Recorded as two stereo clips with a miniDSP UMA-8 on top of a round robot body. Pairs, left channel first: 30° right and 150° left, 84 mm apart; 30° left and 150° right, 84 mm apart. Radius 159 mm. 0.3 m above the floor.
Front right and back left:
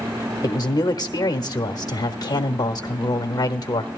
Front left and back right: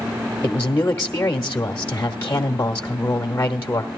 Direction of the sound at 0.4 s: 20° right.